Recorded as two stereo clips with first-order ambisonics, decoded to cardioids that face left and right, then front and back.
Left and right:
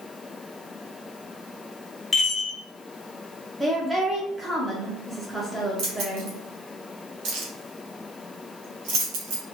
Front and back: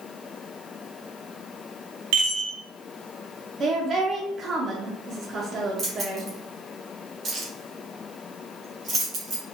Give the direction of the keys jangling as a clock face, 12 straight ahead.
4 o'clock.